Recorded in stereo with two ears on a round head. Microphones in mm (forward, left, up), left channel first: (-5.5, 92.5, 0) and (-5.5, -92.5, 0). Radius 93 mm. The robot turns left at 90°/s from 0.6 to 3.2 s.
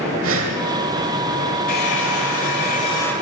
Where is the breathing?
65° right (ahead or behind), 1.2 m.